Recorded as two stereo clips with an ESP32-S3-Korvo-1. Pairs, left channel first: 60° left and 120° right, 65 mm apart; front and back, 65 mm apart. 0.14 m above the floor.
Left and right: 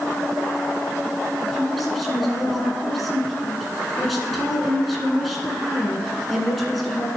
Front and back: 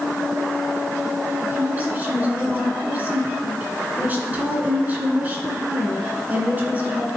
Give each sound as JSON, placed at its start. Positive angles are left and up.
{"t": 1.4, "sound": "a woman speaking", "azimuth_deg": 150, "distance_m": 1.8}